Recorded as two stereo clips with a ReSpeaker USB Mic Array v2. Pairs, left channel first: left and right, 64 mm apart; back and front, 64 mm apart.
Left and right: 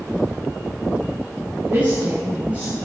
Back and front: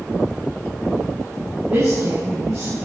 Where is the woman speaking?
25° right, 7 m; by 2.8 s 20° right, 7 m.